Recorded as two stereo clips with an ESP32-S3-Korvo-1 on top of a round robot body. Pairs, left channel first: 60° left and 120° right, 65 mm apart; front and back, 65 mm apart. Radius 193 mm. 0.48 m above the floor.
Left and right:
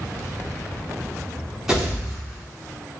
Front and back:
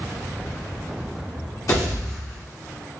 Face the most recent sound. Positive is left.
turn(degrees=-35)